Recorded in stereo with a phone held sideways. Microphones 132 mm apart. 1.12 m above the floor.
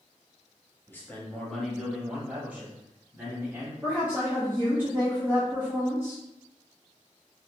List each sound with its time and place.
0.9 s a man speaking: 20° left (ahead or behind), 1.3 m; by 3.7 s 25° right (ahead or behind), 2.5 m
3.8 s a woman speaking: 15° right (ahead or behind), 1.1 m